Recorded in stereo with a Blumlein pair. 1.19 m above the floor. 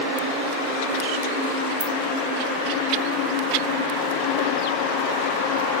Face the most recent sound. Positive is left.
turn(degrees=-30)